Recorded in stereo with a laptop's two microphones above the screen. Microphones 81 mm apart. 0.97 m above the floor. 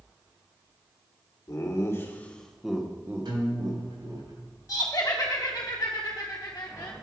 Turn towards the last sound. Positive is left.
turn(degrees=45)  # may be behind; listen again after turning